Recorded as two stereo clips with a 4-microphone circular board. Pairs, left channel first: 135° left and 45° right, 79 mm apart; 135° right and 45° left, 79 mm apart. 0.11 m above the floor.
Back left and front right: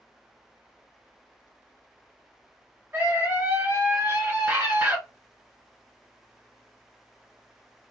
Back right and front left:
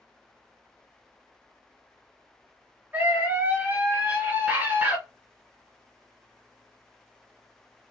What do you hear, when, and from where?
2.9 s a scream: 5° right, 2.0 m